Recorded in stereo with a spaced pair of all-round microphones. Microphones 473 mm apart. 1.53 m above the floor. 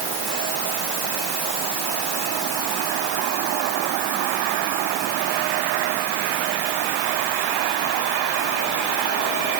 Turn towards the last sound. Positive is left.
No sound to turn to.